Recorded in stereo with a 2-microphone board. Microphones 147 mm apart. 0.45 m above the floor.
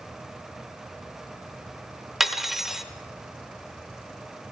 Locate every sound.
2.2 s cutlery clinking: centre (ahead or behind), 0.7 m